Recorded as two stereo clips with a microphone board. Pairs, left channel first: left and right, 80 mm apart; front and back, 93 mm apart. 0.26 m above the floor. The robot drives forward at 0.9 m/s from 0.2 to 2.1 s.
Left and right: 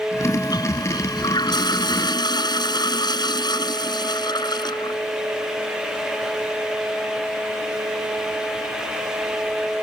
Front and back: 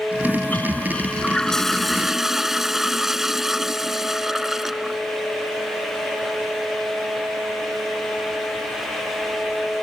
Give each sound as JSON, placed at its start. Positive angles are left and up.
{"t": 0.2, "sound": "a toilet flushing", "azimuth_deg": 65}